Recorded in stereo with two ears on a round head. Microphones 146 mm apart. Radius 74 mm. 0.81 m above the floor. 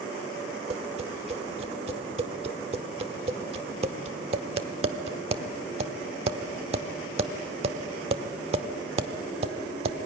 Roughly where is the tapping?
Right.